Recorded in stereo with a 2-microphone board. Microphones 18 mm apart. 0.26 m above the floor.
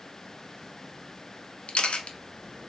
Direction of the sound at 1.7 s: 85° left.